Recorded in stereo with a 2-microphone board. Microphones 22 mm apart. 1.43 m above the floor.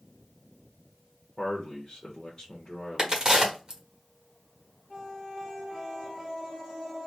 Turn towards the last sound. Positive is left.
turn(degrees=-25)  # may be behind; listen again after turning